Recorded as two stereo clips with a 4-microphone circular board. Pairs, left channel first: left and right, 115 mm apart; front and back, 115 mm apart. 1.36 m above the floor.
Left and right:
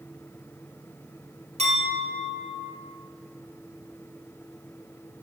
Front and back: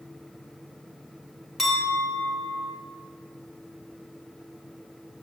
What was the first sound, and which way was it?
A clink, 95° right.